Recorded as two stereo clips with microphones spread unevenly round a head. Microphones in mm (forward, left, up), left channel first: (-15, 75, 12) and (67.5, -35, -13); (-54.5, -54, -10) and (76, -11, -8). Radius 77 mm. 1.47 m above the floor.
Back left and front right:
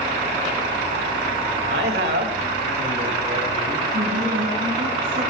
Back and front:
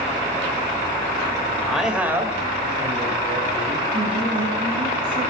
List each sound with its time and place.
1.6 s a man speaking: 75° right, 2.5 m; by 3.8 s 20° right, 4 m
3.9 s a woman speaking: 35° right, 7 m